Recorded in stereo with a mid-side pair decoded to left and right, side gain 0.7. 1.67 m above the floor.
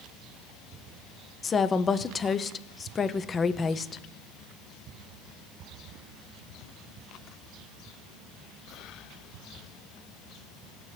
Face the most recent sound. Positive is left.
turn(degrees=25)